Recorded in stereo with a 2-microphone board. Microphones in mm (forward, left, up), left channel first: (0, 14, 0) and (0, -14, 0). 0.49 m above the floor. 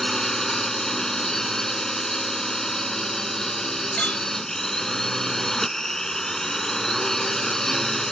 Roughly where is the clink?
Left.